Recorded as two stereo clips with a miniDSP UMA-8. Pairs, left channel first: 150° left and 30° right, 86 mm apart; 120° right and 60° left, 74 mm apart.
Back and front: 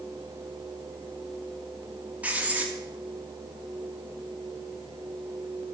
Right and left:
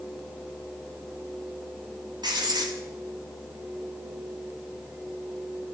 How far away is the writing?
About 3.5 m.